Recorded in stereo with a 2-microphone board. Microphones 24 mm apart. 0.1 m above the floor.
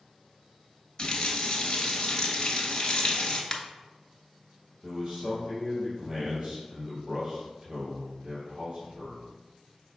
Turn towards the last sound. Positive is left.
turn(degrees=-15)  # may be behind; listen again after turning